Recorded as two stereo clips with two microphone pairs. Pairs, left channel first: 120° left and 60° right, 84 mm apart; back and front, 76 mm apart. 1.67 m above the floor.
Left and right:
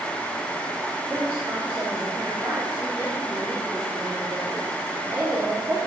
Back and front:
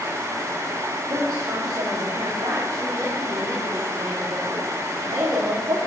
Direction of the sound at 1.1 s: 5° left.